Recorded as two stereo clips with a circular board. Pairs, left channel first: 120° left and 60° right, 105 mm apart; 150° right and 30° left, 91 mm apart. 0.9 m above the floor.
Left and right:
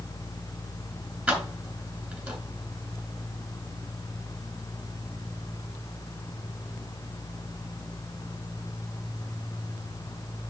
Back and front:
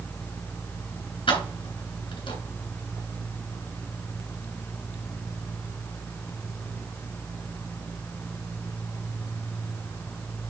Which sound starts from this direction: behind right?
Keys jangling, at 1.3 s.